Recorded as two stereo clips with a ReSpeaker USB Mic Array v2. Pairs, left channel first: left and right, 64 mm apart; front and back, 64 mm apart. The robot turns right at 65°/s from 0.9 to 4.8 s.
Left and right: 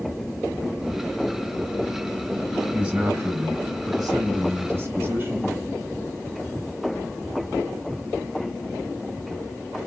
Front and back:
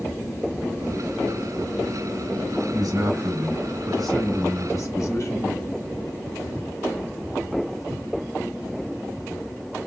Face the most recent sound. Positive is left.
turn(degrees=-40)